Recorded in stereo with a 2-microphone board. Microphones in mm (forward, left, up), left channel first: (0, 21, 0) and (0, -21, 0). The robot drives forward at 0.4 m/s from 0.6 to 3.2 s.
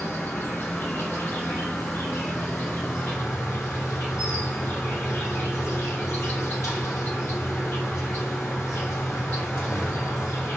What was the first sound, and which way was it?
An insect, 65° left (ahead or behind).